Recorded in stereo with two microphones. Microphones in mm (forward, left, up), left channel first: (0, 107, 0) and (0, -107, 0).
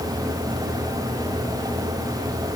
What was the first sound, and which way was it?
Only background noise.